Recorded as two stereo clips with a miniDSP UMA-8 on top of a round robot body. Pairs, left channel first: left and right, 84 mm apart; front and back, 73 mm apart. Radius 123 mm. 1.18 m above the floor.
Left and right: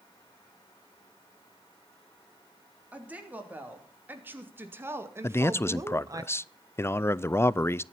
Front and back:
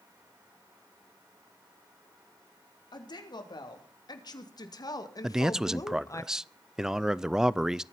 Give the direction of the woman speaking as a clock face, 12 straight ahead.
1 o'clock.